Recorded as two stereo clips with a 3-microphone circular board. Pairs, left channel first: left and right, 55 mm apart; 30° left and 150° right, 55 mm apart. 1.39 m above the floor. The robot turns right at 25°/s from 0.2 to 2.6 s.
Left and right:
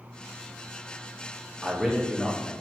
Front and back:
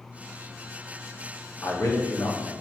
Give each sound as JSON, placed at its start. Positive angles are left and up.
{"t": 1.6, "sound": "a man speaking", "azimuth_deg": 0, "distance_m": 1.4}